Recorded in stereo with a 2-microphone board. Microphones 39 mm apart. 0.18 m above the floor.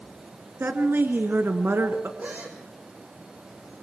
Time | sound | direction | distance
0.6 | a woman speaking | 60° right (ahead or behind) | 2 m
2.2 | a gasp | 50° right (ahead or behind) | 5 m